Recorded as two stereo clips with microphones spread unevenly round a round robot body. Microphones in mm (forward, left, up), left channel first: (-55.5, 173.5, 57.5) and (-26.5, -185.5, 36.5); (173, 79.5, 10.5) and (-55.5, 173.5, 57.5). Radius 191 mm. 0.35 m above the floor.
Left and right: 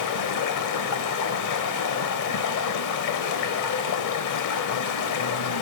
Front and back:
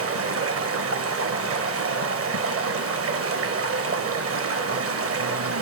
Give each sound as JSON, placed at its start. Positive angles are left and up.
{"t": 0.0, "sound": "running water", "azimuth_deg": 130, "distance_m": 1.0}